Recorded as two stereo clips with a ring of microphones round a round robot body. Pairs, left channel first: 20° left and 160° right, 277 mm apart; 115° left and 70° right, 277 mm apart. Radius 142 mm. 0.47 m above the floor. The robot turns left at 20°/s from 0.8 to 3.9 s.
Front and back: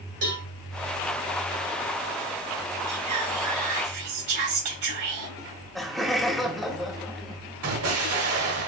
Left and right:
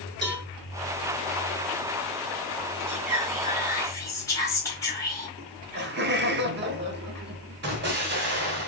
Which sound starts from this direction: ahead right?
Laughter, at 5.4 s.